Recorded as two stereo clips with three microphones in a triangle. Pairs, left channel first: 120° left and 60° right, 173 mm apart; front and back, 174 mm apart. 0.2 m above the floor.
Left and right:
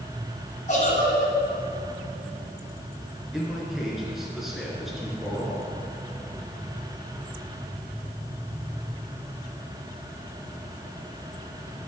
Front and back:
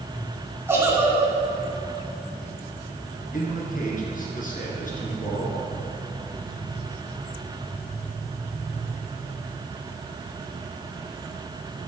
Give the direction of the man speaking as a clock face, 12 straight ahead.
11 o'clock.